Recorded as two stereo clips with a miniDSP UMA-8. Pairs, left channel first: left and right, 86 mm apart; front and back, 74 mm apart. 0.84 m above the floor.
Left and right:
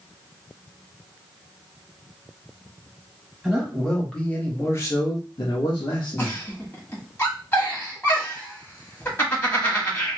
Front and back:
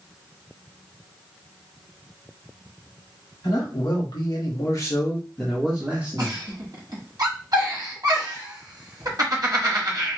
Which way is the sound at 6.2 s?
150° left.